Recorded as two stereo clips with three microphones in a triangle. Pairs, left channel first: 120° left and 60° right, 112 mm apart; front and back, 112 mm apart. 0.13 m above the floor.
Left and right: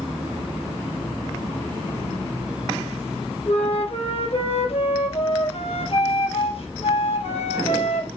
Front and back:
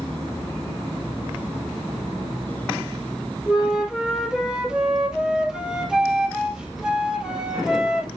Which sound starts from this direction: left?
A flute, at 3.5 s.